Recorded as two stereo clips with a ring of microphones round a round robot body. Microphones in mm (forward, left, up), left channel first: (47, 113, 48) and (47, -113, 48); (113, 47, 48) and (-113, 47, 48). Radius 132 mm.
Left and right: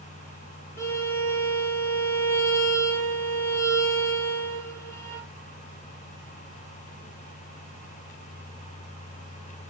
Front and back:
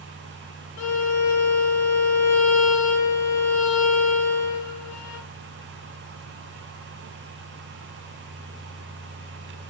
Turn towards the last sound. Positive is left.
turn(degrees=10)